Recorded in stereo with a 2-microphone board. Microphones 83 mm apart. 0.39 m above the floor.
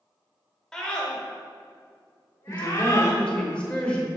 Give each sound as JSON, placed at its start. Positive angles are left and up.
{"t": 0.7, "sound": "a scream", "side_deg": 5, "distance_m": 1.4}
{"t": 2.5, "sound": "a woman speaking", "side_deg": 15, "distance_m": 1.2}